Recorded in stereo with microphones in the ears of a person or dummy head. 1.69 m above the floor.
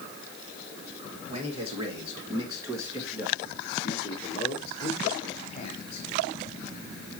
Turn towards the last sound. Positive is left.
turn(degrees=45)  # may be behind; listen again after turning